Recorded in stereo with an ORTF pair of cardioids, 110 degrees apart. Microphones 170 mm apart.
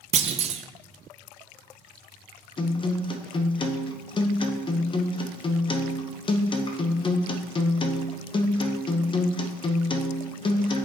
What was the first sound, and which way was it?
A clunk, 40° right.